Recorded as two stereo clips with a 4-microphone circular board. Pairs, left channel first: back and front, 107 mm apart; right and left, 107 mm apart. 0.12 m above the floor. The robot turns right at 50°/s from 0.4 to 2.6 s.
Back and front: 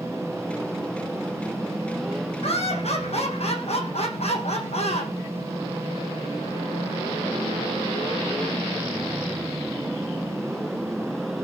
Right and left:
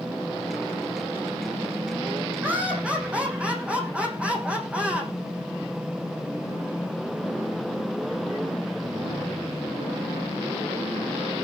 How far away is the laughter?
About 7 m.